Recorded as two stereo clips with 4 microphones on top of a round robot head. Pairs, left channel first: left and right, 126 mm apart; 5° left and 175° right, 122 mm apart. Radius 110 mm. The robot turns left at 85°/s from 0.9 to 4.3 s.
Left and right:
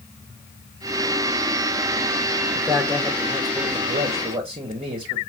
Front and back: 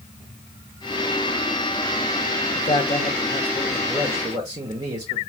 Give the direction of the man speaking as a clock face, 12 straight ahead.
11 o'clock.